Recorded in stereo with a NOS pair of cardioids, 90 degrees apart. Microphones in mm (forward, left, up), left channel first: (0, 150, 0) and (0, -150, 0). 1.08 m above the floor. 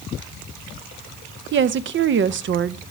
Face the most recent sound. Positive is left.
turn(degrees=-45)